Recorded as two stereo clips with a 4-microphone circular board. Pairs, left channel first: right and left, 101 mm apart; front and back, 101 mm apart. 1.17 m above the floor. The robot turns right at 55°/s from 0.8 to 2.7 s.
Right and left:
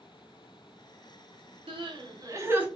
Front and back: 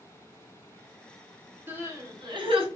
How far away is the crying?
About 0.9 m.